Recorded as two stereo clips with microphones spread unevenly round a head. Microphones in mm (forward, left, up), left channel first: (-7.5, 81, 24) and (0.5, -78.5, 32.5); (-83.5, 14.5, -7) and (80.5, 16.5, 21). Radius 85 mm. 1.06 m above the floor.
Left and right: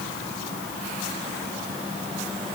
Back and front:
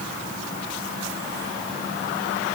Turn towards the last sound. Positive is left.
No sound to turn to.